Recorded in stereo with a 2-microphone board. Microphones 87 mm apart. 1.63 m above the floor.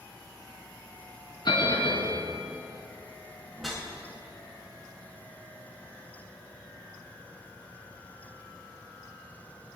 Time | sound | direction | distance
1.4 | a bell | 65° left (ahead or behind) | 4 m
3.5 | a whoosh | centre (ahead or behind) | 4.5 m